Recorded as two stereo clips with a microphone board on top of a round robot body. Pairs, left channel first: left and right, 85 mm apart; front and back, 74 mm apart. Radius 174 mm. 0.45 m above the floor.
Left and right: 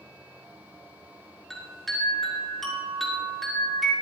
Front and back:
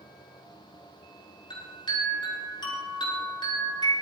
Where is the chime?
Straight ahead, 6 m.